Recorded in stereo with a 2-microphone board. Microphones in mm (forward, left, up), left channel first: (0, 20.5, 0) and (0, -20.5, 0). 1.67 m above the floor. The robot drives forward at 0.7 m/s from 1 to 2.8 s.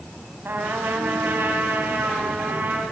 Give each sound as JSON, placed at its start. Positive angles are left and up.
{"t": 0.5, "sound": "a trumpet", "side_deg": -60, "distance_m": 4.0}